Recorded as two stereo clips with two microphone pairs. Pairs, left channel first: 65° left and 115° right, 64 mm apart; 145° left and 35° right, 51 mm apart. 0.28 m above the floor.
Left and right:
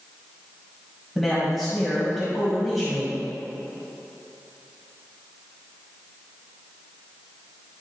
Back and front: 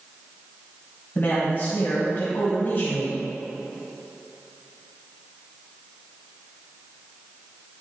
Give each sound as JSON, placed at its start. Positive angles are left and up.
{"t": 1.1, "sound": "a man speaking", "azimuth_deg": 155, "distance_m": 1.9}